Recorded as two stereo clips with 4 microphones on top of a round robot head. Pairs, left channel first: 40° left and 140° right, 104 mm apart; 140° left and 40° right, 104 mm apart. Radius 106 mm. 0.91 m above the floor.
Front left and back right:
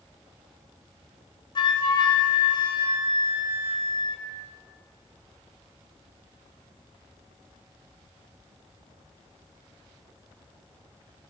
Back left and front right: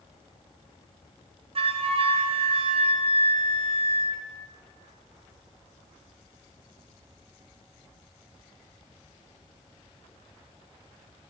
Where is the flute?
5° right, 2.5 m.